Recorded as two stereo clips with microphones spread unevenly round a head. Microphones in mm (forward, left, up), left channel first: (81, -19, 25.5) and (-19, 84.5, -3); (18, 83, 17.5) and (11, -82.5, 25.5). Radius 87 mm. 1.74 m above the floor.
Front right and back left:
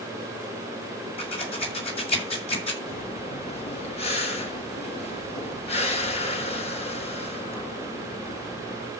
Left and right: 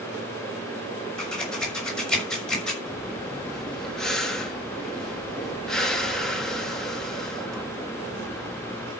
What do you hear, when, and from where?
1.2 s scissors: straight ahead, 6 m
2.9 s breathing: straight ahead, 2.5 m